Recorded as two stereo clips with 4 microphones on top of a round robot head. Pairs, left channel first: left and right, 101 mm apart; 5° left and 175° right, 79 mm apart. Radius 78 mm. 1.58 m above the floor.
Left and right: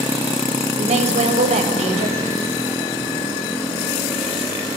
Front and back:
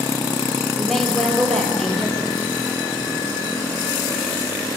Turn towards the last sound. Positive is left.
turn(degrees=-85)